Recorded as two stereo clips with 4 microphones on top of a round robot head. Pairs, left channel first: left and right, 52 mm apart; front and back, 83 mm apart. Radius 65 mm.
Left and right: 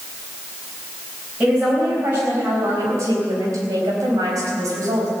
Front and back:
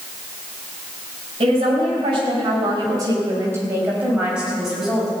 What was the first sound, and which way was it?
A woman speaking, 160° right.